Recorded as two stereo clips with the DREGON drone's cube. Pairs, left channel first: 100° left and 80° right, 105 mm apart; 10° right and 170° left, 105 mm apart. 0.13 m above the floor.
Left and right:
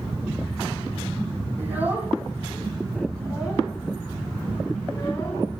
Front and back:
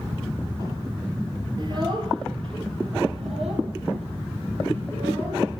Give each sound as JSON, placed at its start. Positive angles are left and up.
{"t": 1.6, "sound": "a child speaking", "azimuth_deg": -145, "distance_m": 2.0}